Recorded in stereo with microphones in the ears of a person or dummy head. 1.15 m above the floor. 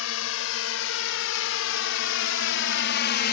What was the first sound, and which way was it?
A drone, 80° left.